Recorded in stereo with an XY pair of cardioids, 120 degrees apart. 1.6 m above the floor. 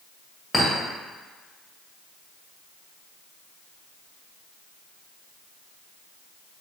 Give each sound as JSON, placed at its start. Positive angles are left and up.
{"t": 0.5, "sound": "a clink", "azimuth_deg": 10, "distance_m": 1.6}